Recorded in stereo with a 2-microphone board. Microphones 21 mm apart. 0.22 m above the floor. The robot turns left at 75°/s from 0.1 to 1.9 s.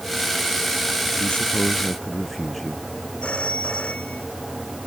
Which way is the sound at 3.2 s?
65° left (ahead or behind).